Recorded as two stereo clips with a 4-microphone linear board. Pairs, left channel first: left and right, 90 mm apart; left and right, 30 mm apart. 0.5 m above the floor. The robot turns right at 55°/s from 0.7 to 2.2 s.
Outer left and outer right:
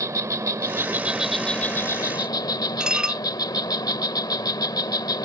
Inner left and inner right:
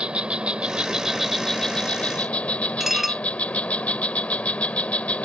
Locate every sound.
0.0 s an insect: 35° right; by 5.2 s 50° left
2.8 s dishes clattering: 10° right (ahead or behind)